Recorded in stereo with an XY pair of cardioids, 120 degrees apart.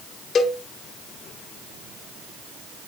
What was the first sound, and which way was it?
A cowbell, 40° left.